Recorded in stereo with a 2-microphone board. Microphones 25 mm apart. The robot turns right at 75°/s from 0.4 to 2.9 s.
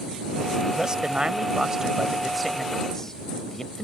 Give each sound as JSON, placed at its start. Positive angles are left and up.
{"t": 0.7, "sound": "a man speaking", "azimuth_deg": -125}